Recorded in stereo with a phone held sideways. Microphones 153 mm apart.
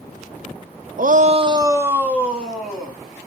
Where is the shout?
65° right (ahead or behind), 0.5 m; by 3.0 s centre (ahead or behind), 2 m.